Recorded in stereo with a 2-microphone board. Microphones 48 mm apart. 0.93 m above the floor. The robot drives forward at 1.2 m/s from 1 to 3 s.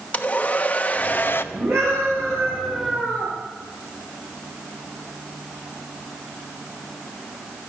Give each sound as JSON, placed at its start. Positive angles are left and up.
{"t": 0.1, "sound": "a hair dryer", "side_deg": 30, "distance_m": 1.0}
{"t": 1.5, "sound": "a scream", "side_deg": -65, "distance_m": 8.0}